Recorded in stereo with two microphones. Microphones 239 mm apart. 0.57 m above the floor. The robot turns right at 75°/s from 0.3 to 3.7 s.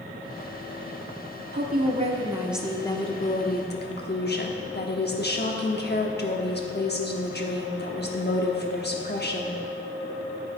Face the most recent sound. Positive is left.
turn(degrees=80)